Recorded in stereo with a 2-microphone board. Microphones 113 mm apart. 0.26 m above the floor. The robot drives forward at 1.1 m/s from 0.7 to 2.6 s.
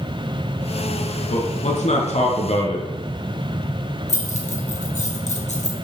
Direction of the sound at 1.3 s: 70° left (ahead or behind).